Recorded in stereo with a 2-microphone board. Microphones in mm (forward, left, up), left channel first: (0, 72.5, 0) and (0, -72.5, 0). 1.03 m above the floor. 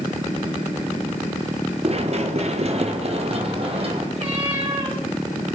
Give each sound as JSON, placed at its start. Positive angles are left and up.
{"t": 1.8, "sound": "running footsteps", "side_deg": -45, "distance_m": 1.3}
{"t": 4.2, "sound": "a cat meowing", "side_deg": -40, "distance_m": 5.0}